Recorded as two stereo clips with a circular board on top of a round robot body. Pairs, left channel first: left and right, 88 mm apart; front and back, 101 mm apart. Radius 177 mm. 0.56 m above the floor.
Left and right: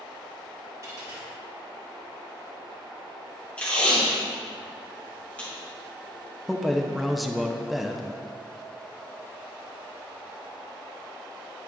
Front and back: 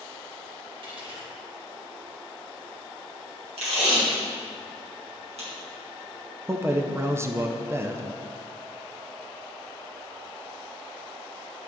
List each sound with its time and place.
0.8 s a dropped coin: 145° right, 1.9 m
3.6 s tape being pulled: 165° left, 2 m
6.5 s a man speaking: straight behind, 0.7 m